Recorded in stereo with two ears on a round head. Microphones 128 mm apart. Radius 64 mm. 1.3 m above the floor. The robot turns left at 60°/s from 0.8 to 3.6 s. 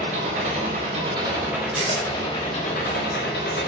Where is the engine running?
120° right, 4.5 m; by 3.7 s 75° left, 4.5 m.